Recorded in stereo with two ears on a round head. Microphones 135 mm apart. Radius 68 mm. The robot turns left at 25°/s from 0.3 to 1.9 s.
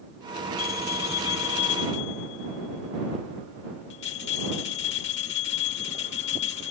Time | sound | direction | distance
0.6 | a bell | 110° left | ?